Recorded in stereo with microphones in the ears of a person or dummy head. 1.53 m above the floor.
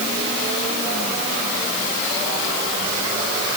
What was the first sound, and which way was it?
Only background noise.